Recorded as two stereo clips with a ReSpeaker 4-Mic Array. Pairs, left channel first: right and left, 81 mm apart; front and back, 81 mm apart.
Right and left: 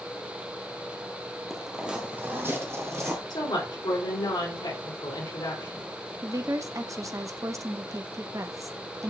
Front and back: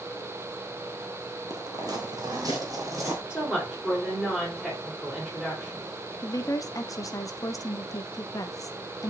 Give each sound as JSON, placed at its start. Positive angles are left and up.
{"t": 1.5, "sound": "footsteps", "azimuth_deg": -175, "distance_m": 1.3}
{"t": 3.3, "sound": "a woman speaking", "azimuth_deg": -100, "distance_m": 4.0}
{"t": 6.2, "sound": "a woman speaking", "azimuth_deg": 45, "distance_m": 0.8}